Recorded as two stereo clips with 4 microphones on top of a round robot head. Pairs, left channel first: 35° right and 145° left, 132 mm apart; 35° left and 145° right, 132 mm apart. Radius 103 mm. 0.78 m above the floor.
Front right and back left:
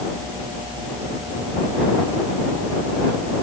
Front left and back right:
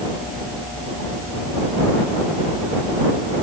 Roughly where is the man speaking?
I don't hear a man speaking.